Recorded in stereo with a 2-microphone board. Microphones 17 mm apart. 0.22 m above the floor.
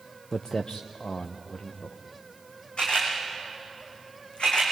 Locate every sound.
0.3 s footsteps: 35° left (ahead or behind), 1.0 m; by 2.0 s 75° left (ahead or behind), 3 m
2.8 s a camera shutter: 80° left, 6 m